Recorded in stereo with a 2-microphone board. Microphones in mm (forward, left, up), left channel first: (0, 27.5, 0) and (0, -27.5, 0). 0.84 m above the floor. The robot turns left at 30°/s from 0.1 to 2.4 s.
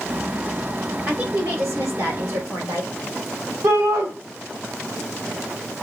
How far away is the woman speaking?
About 3 m.